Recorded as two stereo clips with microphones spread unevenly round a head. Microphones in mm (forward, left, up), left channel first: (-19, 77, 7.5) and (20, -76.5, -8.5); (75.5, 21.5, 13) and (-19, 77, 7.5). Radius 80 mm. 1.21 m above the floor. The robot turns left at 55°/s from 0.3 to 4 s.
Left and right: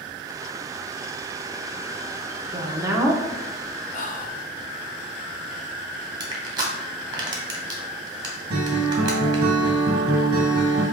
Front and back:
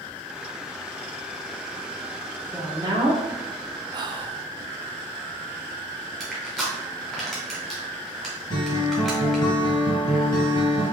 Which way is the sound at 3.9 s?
130° left.